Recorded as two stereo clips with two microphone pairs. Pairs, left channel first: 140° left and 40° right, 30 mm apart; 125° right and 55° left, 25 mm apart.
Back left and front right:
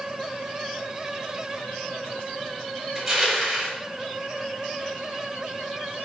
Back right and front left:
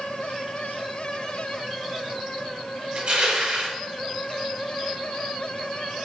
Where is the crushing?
40° left, 5 m.